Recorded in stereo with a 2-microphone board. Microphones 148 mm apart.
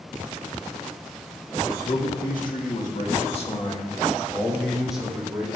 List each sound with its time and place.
1.6 s a man speaking: 80° left, 2.5 m; by 5.5 s 15° right (ahead or behind), 2.5 m